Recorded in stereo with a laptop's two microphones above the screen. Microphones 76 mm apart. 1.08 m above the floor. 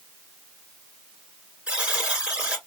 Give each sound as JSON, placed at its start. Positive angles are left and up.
{"t": 1.7, "sound": "a buzzer", "side_deg": -15, "distance_m": 2.5}